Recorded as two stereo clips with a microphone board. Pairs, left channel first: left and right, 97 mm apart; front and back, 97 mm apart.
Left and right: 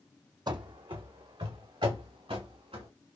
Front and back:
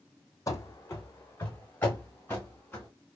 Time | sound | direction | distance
0.5 | running footsteps | 50° right | 0.5 m